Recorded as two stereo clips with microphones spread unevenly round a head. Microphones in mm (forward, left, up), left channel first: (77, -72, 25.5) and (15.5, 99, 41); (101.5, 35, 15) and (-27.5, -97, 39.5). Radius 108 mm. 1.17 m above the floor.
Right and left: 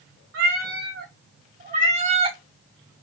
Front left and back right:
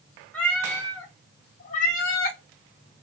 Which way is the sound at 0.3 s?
135° left.